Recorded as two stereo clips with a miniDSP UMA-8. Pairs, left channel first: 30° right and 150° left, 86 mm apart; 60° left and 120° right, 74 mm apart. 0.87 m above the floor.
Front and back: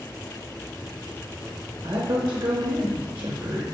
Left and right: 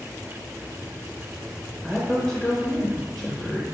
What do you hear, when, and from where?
1.8 s a woman speaking: 145° left, 0.7 m